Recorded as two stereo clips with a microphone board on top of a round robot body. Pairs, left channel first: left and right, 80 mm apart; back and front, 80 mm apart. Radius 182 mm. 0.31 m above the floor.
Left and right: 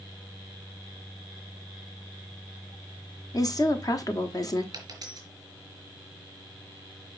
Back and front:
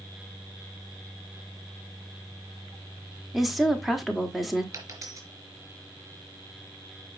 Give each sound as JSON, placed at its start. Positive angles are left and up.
{"t": 3.3, "sound": "a woman speaking", "azimuth_deg": 90, "distance_m": 1.8}
{"t": 4.7, "sound": "a dropped coin", "azimuth_deg": -50, "distance_m": 3.0}